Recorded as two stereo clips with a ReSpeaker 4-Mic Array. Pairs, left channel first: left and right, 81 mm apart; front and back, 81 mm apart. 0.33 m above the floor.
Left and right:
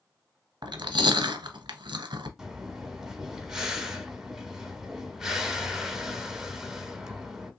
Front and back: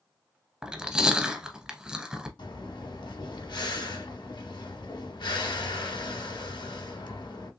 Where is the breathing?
10° right, 0.8 m.